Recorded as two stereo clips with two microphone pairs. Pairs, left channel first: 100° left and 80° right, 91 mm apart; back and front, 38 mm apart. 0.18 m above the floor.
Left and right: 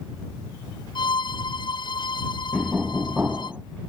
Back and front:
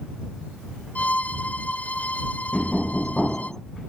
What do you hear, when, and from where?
0.9 s a violin: 135° left
2.5 s knocking: 125° right